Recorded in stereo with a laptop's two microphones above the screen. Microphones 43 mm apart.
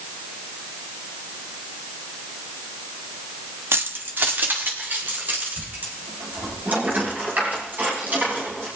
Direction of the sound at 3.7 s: 70° right (ahead or behind).